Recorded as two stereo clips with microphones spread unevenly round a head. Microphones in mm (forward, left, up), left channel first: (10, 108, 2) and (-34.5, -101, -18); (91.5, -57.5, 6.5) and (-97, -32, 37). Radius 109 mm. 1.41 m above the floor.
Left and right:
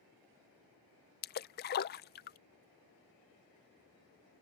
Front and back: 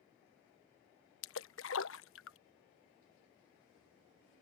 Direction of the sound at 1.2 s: 35° left.